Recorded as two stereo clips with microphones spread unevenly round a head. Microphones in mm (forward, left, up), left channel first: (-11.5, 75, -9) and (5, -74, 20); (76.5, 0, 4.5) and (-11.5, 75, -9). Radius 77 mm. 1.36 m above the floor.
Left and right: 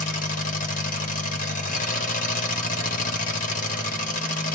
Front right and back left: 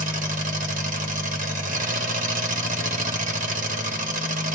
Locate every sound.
0.0 s an engine running: 135° left, 1.2 m